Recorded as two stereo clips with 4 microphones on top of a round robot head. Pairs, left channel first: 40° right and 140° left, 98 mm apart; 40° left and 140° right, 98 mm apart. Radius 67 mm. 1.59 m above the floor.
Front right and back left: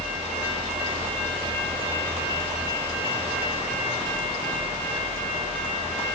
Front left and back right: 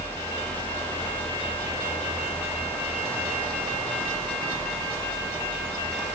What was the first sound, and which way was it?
Only background noise.